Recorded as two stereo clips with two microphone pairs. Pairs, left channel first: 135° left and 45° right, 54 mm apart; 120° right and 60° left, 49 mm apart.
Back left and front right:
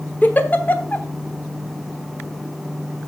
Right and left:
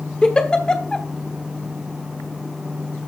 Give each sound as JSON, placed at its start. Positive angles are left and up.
{"t": 0.2, "sound": "a giggle", "azimuth_deg": 180, "distance_m": 1.1}